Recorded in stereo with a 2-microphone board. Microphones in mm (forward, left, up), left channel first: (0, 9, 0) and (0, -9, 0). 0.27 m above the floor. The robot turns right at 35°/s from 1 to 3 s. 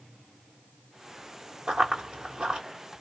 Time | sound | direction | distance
1.7 | running footsteps | 75° right (ahead or behind) | 1.9 m